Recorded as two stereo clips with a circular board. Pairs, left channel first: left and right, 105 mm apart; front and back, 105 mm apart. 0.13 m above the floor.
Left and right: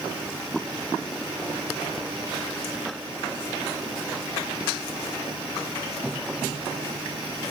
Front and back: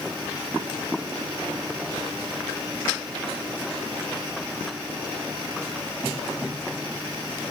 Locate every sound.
Only background noise.